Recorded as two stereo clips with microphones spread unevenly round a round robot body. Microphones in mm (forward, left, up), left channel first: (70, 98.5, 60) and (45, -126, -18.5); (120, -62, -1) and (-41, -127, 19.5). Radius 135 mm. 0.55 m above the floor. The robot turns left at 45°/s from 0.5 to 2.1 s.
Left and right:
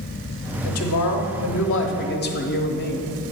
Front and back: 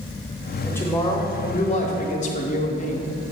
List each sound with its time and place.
0.6 s a woman speaking: 100° left, 1.1 m; by 3.1 s 30° left, 1.1 m